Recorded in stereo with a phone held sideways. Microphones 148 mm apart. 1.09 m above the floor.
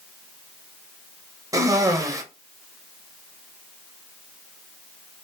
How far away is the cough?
About 0.6 m.